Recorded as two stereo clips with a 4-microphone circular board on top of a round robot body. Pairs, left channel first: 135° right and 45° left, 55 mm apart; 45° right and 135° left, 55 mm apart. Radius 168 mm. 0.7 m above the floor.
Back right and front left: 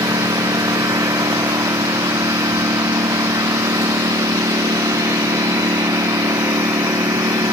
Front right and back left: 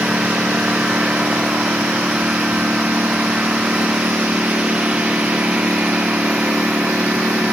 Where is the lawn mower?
60° left; by 7.5 s 65° left.